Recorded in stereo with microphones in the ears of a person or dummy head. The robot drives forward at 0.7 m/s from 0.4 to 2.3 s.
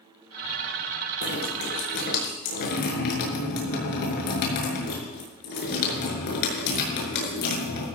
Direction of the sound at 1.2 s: 50° left (ahead or behind).